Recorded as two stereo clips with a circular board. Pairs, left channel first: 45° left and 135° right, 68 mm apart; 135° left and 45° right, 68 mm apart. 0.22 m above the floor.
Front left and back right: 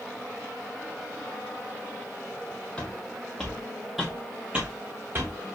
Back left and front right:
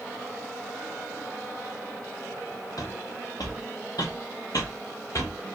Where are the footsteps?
120° left, 1.9 m; by 5.4 s 175° left, 1.2 m.